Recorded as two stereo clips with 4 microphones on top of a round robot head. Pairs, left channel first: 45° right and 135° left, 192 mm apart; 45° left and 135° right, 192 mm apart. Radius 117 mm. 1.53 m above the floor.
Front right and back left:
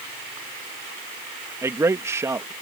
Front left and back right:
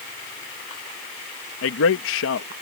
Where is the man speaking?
60° left.